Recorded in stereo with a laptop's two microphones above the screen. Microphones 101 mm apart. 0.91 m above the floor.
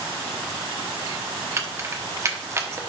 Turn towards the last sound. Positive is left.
turn(degrees=-30)  # may be behind; listen again after turning